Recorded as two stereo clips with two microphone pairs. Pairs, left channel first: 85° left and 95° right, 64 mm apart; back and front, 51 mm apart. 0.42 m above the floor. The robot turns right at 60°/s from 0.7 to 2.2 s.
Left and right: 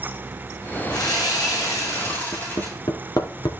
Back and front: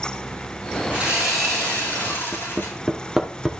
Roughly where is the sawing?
Ahead left.